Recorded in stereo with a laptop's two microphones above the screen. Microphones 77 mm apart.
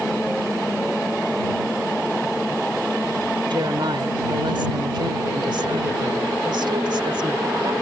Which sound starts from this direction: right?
A woman speaking, at 3.5 s.